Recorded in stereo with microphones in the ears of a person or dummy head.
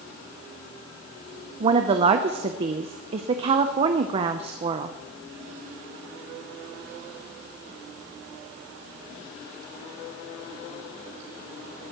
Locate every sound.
1.6 s a woman speaking: 35° right (ahead or behind), 0.6 m